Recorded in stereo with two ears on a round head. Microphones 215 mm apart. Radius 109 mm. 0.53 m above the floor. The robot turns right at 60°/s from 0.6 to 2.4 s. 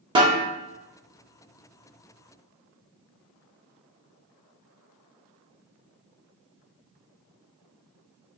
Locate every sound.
0.1 s a snare drum: 20° right (ahead or behind), 0.6 m